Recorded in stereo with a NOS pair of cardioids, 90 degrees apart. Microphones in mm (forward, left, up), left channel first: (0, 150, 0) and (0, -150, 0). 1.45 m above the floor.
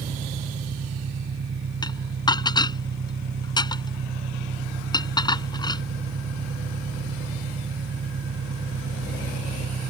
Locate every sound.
0.0 s an engine running: 40° right
1.8 s dishes clattering: 15° left